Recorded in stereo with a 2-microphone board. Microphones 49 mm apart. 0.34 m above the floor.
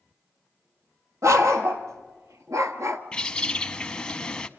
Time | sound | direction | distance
1.2 | a dog barking | 90° right | 2 m
3.1 | a bird | 20° left (ahead or behind) | 0.7 m